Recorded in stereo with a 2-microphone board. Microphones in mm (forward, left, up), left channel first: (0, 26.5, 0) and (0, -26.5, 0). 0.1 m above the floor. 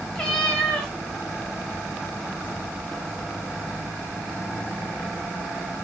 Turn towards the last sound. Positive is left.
turn(degrees=15)  # may be behind; listen again after turning